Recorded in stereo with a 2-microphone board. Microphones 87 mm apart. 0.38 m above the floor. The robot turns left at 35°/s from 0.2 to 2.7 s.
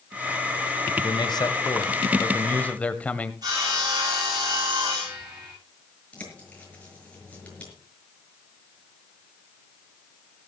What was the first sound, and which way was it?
A man speaking, 75° left.